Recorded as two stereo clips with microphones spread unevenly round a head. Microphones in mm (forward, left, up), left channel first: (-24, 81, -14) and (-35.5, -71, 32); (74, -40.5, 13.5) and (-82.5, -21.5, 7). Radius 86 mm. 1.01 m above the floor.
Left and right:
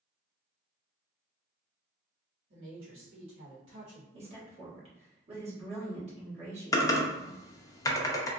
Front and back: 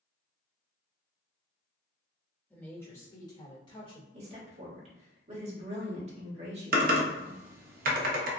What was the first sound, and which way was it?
A woman speaking, 90° right.